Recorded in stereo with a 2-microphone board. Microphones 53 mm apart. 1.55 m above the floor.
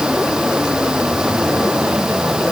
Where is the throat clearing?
I don't hear throat clearing.